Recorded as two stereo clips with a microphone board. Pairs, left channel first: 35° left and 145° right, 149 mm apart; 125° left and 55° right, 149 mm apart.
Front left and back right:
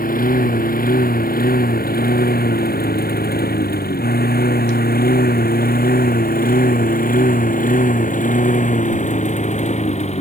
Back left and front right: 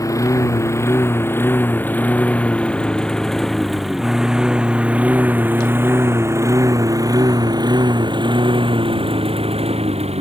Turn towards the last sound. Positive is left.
turn(degrees=-10)